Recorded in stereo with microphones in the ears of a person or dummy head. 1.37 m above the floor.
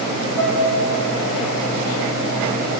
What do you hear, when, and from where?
0.4 s a piano: 10° right (ahead or behind), 2 m